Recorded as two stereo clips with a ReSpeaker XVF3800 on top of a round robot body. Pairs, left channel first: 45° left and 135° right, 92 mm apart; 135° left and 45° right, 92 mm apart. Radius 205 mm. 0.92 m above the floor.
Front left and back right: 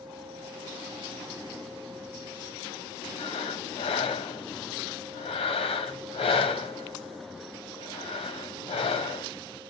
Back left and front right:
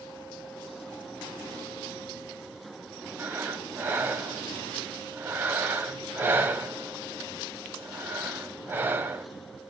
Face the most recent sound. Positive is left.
turn(degrees=25)